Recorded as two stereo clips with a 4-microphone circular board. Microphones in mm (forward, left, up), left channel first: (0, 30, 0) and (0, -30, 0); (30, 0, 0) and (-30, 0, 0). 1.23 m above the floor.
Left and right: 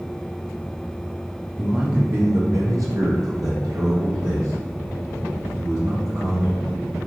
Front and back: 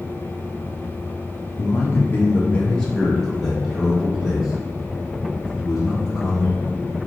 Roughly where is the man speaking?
Ahead.